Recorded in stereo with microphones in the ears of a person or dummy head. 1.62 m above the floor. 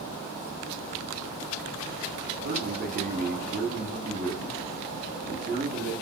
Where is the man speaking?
50° right (ahead or behind), 0.9 m.